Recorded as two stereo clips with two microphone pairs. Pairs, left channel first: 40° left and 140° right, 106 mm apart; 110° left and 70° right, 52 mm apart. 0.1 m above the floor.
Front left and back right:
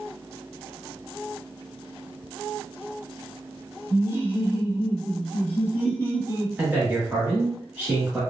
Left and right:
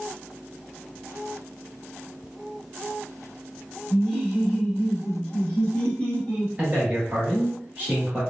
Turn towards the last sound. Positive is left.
turn(degrees=-90)